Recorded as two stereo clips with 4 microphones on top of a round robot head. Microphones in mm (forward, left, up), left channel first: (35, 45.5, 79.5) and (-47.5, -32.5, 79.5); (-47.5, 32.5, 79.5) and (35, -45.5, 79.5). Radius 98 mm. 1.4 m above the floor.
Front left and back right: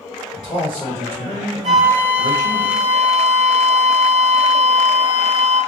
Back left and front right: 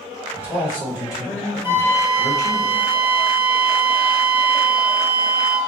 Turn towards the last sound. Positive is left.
turn(degrees=-110)